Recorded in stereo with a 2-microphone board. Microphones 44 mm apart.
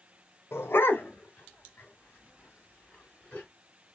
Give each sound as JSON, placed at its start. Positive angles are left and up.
{"t": 0.5, "sound": "a dog barking", "side_deg": 70, "distance_m": 0.6}